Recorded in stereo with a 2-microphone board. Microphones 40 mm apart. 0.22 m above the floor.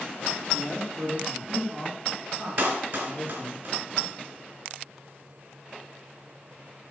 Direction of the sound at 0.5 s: 5° right (ahead or behind).